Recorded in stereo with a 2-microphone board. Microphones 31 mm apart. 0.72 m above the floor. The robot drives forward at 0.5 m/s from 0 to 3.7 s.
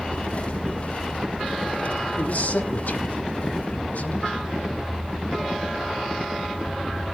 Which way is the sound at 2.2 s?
75° left (ahead or behind).